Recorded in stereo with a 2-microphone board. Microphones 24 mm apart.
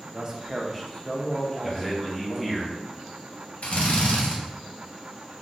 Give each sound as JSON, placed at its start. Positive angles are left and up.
{"t": 0.1, "sound": "a man speaking", "side_deg": -35, "distance_m": 0.5}
{"t": 1.6, "sound": "a man speaking", "side_deg": -5, "distance_m": 0.9}
{"t": 3.6, "sound": "a drill", "side_deg": 65, "distance_m": 0.7}